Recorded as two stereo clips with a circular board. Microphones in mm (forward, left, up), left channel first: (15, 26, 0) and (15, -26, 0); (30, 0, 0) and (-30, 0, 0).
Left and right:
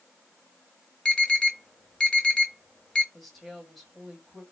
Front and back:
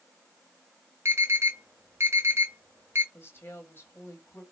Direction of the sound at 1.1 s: 160° left.